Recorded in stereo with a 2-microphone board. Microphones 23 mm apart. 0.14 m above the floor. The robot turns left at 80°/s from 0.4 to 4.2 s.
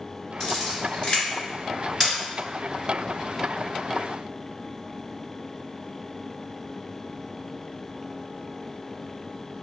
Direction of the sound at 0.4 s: 25° left (ahead or behind).